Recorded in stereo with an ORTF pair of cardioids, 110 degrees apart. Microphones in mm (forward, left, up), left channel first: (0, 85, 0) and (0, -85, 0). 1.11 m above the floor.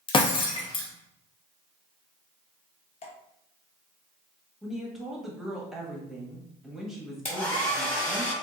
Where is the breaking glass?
30° left, 0.8 m.